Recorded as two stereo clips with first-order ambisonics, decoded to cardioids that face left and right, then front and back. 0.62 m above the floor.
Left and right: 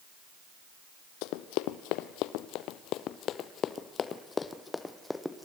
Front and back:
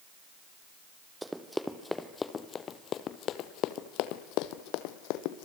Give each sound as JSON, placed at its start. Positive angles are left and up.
{"t": 1.2, "sound": "running footsteps", "azimuth_deg": 95, "distance_m": 1.5}